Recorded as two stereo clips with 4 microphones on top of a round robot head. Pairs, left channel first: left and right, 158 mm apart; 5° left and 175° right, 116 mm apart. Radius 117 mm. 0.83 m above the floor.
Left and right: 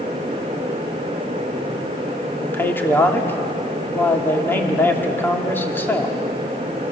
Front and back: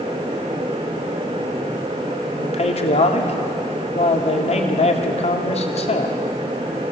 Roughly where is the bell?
I don't hear a bell.